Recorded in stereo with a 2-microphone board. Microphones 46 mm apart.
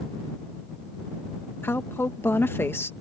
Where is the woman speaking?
60° left (ahead or behind).